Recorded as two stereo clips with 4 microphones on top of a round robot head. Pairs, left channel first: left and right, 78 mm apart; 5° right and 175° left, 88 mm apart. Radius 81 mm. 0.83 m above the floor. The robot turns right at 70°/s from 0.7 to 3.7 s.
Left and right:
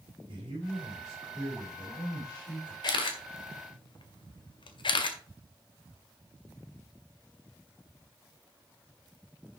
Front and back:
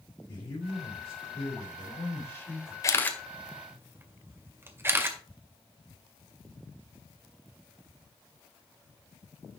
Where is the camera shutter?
50° left, 1.9 m; by 5.2 s 110° left, 1.9 m.